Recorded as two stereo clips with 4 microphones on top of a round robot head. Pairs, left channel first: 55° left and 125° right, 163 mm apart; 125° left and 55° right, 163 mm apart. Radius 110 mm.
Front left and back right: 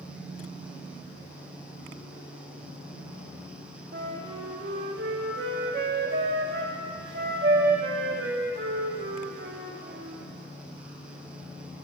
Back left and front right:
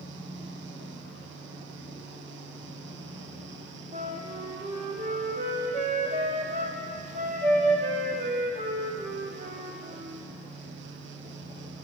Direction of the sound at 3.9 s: 100° right.